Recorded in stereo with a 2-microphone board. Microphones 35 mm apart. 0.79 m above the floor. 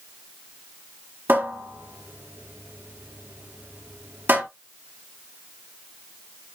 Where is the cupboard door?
80° right, 4 m.